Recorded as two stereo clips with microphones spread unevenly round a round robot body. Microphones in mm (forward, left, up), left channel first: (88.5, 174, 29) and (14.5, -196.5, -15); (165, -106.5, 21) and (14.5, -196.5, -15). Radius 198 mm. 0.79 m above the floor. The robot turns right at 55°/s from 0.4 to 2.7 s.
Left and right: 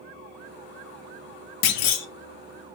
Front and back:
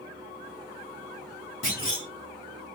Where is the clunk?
90° left, 0.7 m; by 2.1 s 115° left, 0.7 m.